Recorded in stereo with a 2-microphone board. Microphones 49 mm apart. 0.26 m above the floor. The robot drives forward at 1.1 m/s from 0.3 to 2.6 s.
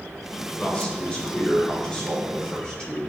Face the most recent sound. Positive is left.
turn(degrees=20)  # may be behind; listen again after turning